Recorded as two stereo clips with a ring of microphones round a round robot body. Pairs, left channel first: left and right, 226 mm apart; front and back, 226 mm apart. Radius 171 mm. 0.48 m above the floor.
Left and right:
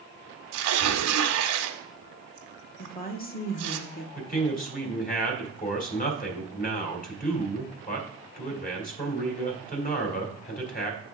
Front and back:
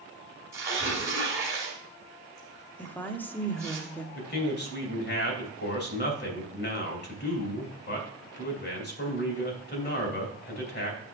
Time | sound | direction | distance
0.5 | tearing paper | 100° right | 1.0 m
2.8 | a woman speaking | 80° left | 1.1 m
4.2 | a man speaking | 40° left | 2.5 m